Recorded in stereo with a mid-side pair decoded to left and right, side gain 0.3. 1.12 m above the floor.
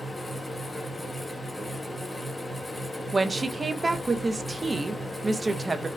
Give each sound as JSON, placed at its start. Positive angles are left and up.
{"t": 0.0, "sound": "a fan", "azimuth_deg": 25, "distance_m": 1.0}
{"t": 3.1, "sound": "a woman speaking", "azimuth_deg": -35, "distance_m": 0.6}